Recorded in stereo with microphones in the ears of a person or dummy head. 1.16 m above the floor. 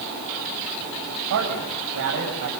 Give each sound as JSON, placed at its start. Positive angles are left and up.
{"t": 1.3, "sound": "a man speaking", "side_deg": -60, "distance_m": 7.0}